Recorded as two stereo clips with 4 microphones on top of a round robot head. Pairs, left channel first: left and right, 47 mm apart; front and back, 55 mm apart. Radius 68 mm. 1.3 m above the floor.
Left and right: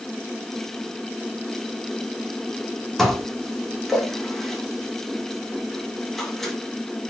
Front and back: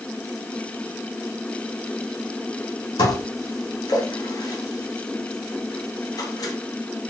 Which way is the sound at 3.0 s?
5° left.